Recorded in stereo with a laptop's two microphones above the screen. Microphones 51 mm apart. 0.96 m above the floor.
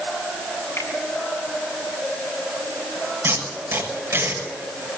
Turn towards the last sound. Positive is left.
turn(degrees=-60)  # may be behind; listen again after turning